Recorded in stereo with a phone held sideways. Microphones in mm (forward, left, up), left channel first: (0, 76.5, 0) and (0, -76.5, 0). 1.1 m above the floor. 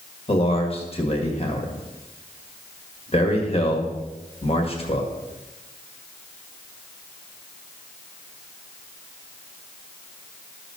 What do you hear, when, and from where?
0.3 s a man speaking: 40° left (ahead or behind), 1.8 m